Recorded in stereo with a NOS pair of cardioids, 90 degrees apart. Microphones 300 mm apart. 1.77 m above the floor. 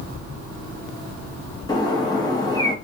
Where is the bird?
15° left, 0.8 m.